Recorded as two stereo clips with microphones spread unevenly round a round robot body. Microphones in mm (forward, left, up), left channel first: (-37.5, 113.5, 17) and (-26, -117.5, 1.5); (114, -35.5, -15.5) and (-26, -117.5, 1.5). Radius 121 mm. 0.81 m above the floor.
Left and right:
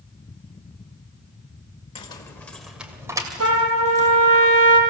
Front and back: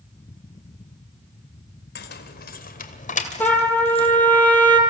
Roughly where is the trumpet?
Ahead right.